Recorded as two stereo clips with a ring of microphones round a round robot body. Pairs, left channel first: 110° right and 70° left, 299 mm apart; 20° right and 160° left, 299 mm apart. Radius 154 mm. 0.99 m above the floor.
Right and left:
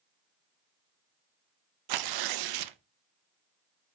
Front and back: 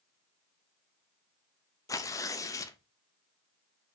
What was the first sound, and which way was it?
Tearing paper, 55° left.